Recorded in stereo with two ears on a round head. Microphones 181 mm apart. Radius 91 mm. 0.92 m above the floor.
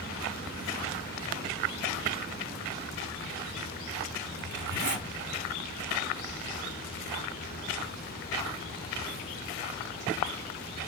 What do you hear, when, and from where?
4.4 s a zipper: 60° right (ahead or behind), 1.5 m